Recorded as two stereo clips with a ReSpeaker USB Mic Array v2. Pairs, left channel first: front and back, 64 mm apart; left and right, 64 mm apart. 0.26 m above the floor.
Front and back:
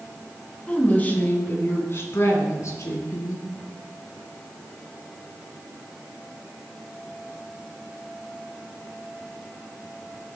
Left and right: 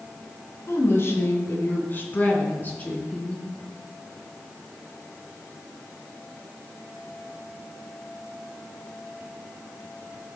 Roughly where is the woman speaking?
Ahead left.